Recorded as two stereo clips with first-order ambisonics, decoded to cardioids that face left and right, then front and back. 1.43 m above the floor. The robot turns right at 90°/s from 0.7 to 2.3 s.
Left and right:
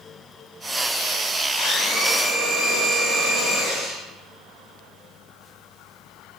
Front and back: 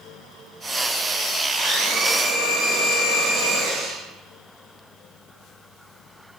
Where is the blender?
140° left, 1.3 m; by 4.0 s 155° right, 1.3 m.